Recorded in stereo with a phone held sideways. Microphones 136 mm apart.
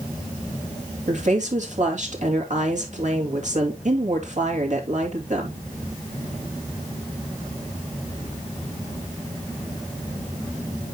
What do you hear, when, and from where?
1.1 s a woman speaking: 60° right (ahead or behind), 2.5 m